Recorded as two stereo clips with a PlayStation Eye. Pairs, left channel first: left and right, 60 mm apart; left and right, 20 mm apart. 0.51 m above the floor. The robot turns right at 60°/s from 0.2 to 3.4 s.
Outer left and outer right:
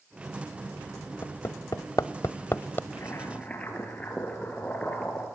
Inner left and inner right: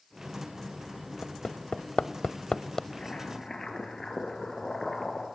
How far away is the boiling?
About 4 m.